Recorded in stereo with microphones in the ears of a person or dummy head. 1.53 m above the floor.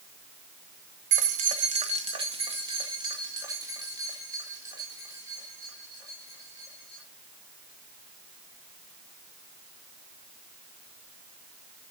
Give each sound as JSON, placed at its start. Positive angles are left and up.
{"t": 1.1, "sound": "keys jangling", "side_deg": -50, "distance_m": 0.9}